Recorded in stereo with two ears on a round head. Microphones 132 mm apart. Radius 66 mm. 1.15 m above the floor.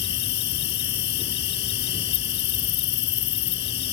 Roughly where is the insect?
Left.